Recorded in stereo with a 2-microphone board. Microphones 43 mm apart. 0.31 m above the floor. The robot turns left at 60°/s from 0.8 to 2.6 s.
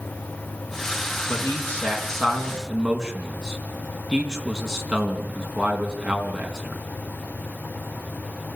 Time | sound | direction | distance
1.3 | a man speaking | 60° left (ahead or behind) | 3.5 m